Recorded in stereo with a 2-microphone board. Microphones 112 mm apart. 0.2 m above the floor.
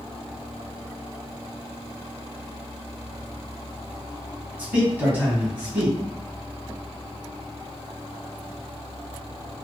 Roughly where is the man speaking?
Centre.